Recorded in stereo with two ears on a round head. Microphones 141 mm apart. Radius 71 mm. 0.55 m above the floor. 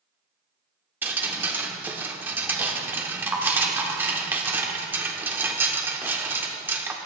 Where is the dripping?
15° right (ahead or behind), 1.1 m.